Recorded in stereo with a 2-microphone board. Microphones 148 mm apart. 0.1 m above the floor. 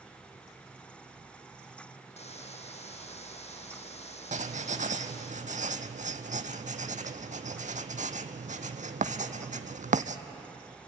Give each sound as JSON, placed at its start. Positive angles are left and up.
{"t": 2.2, "sound": "a hiss", "side_deg": 50, "distance_m": 1.6}
{"t": 4.3, "sound": "writing", "side_deg": -65, "distance_m": 0.9}